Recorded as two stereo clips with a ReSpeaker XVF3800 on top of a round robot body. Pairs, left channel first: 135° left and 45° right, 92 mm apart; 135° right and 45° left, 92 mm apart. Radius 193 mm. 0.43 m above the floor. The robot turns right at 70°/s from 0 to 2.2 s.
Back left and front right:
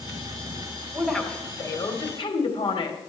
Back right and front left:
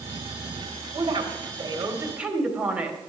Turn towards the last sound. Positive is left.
turn(degrees=120)